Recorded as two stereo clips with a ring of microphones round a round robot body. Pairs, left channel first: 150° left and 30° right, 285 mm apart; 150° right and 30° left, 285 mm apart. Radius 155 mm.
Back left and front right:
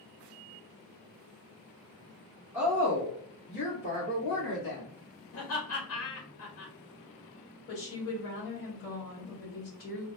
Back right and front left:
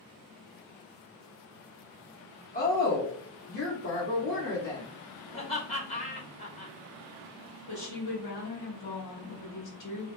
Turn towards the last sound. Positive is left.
turn(degrees=-170)